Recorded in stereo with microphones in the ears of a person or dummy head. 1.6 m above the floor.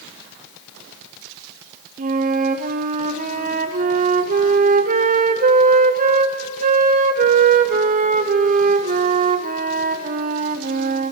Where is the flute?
35° right (ahead or behind), 0.5 m.